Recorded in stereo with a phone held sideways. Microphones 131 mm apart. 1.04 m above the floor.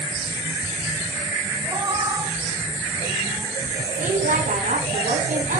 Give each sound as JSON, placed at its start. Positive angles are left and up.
{"t": 1.6, "sound": "a cat meowing", "side_deg": -30, "distance_m": 3.5}
{"t": 4.0, "sound": "a woman speaking", "side_deg": -75, "distance_m": 9.0}